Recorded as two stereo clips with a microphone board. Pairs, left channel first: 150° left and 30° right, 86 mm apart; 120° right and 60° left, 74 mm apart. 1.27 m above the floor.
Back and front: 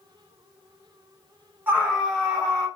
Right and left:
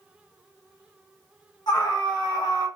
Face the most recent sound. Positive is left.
turn(degrees=-140)